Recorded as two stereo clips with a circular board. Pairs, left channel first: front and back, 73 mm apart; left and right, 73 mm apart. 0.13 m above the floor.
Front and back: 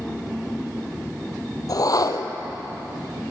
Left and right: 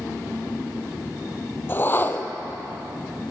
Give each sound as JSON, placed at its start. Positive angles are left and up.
{"t": 1.7, "sound": "a whoosh", "azimuth_deg": 30, "distance_m": 0.7}